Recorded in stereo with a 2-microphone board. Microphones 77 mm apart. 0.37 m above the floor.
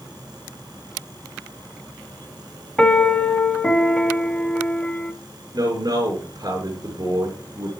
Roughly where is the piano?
Centre.